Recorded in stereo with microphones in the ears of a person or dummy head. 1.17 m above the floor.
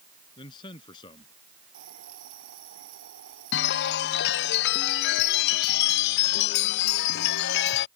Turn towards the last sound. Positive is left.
turn(degrees=65)  # may be behind; listen again after turning